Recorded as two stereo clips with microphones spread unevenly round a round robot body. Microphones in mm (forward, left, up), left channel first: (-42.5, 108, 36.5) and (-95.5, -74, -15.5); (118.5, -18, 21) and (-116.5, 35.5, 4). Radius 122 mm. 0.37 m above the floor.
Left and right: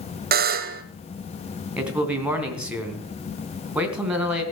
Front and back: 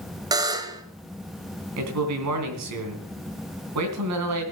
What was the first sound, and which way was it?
A buzzer, 120° right.